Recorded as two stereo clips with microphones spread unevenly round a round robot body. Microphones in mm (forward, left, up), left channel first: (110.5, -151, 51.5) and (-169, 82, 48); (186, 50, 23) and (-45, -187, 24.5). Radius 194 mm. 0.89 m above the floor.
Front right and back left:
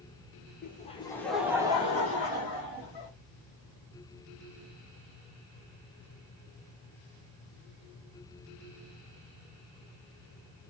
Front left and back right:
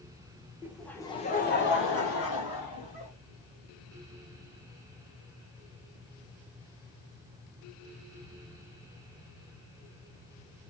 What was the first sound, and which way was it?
Laughter, 60° right.